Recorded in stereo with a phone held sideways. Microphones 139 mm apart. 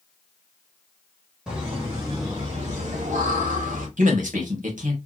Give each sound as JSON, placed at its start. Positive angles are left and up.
{"t": 1.5, "sound": "laughter", "side_deg": -5, "distance_m": 2.0}
{"t": 4.0, "sound": "a man speaking", "side_deg": -80, "distance_m": 2.5}